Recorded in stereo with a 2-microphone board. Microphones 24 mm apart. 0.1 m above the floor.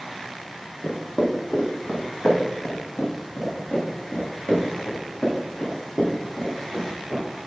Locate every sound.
0.8 s footsteps: 85° left, 1.7 m; by 7.2 s 75° left (ahead or behind), 5 m